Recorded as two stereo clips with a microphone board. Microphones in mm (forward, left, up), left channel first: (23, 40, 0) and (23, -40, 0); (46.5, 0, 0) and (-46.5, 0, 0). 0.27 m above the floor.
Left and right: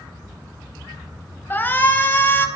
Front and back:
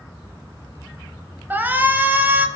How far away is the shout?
About 1.0 m.